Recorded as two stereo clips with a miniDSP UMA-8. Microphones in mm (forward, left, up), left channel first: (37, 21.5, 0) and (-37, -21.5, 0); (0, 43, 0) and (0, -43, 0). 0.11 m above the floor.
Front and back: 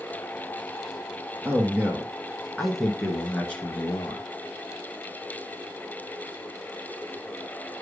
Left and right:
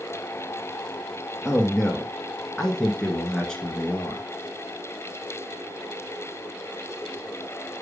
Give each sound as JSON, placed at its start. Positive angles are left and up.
{"t": 1.4, "sound": "a man speaking", "azimuth_deg": 180, "distance_m": 1.6}